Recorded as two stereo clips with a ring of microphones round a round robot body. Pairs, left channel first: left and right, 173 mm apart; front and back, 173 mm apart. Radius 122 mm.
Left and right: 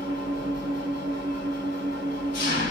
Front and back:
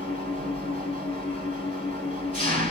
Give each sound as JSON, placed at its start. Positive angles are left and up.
{"t": 0.0, "sound": "an engine running", "azimuth_deg": 140, "distance_m": 2.5}